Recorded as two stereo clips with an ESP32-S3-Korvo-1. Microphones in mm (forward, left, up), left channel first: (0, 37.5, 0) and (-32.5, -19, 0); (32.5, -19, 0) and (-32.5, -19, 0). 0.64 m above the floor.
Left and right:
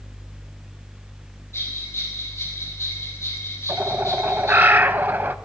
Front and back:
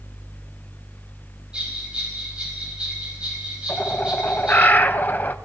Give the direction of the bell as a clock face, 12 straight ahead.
8 o'clock.